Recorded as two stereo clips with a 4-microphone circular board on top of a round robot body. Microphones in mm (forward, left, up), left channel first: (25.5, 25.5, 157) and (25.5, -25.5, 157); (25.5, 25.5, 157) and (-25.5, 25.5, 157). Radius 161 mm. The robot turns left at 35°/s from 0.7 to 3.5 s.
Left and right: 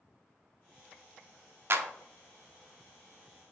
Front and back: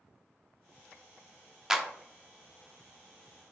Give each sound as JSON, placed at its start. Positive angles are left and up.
{"t": 1.7, "sound": "a clap", "azimuth_deg": -105, "distance_m": 0.9}